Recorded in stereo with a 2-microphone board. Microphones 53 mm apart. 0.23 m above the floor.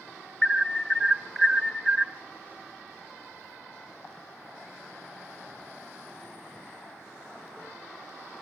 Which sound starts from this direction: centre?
An alarm, at 0.4 s.